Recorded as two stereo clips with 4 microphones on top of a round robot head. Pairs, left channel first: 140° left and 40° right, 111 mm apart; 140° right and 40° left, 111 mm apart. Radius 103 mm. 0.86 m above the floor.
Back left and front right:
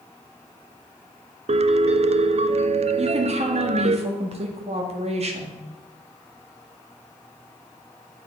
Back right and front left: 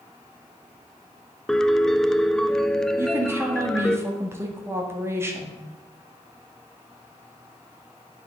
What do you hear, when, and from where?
1.5 s a piano: 55° right, 0.6 m
3.0 s a woman speaking: 25° right, 2.0 m